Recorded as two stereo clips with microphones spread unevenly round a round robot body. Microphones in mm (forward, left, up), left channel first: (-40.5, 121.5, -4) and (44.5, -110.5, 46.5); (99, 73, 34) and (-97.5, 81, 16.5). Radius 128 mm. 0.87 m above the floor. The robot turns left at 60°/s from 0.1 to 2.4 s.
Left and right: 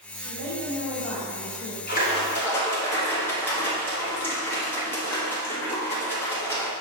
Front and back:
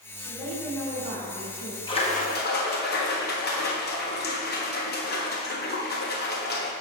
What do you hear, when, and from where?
0.2 s a woman speaking: 105° right, 2.5 m; by 1.8 s 160° left, 2.5 m
1.9 s a splash: 65° left, 1.3 m; by 6.7 s 35° left, 1.3 m